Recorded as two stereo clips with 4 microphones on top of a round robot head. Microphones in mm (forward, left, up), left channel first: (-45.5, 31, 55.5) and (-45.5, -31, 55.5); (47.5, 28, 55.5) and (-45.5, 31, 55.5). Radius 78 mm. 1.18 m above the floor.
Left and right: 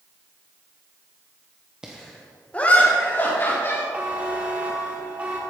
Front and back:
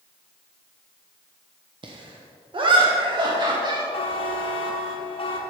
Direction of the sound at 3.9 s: 20° right.